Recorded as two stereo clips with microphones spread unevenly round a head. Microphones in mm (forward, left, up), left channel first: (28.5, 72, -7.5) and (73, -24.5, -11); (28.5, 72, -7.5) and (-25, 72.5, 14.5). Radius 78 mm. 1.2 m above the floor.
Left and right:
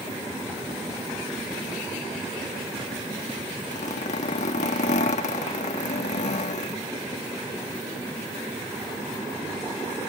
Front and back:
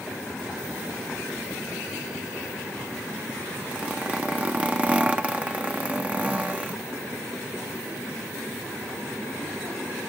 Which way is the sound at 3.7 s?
115° left.